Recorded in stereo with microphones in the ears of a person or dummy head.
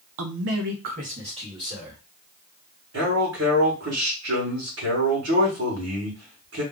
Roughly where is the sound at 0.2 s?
Right.